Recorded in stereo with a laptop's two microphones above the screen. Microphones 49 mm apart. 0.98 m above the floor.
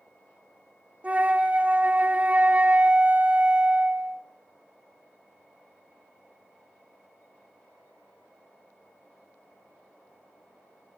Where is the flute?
30° right (ahead or behind), 0.8 m.